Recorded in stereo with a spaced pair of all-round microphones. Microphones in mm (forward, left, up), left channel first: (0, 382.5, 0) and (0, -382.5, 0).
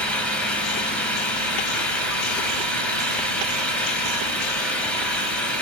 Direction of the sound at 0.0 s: Centre (ahead or behind).